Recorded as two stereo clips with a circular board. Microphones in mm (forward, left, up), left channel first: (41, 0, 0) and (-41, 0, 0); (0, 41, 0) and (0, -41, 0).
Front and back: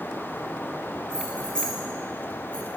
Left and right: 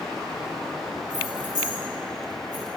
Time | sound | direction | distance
1.1 | keys jangling | 80° left | 1.4 m